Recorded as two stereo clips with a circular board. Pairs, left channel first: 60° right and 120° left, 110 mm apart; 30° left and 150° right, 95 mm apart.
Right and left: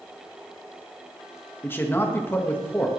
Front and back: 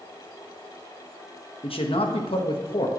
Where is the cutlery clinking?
I don't hear cutlery clinking.